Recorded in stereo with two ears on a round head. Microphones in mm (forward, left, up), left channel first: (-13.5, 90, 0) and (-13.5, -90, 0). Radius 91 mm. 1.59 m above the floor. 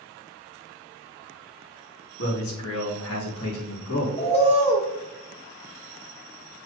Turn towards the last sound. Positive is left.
turn(degrees=30)  # may be behind; listen again after turning